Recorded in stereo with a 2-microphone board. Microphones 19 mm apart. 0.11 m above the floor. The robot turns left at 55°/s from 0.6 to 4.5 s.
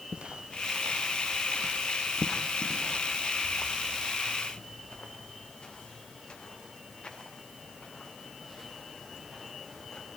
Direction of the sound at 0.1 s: 65° right (ahead or behind).